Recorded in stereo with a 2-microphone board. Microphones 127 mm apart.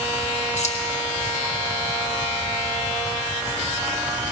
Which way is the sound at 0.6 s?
65° left (ahead or behind).